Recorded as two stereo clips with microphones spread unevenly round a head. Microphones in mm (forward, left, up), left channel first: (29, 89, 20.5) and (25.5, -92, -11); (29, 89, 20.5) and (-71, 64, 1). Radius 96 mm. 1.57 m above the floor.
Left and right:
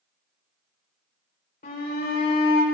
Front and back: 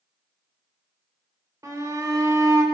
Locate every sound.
1.6 s a shout: 135° left, 5 m